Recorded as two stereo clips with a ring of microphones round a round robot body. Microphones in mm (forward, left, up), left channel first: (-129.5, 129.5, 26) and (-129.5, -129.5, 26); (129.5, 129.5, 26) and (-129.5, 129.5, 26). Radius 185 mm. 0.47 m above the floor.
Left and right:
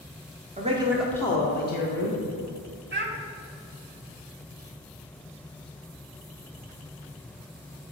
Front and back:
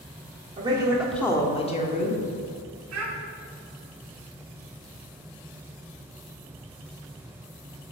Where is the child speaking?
140° right, 1.6 m.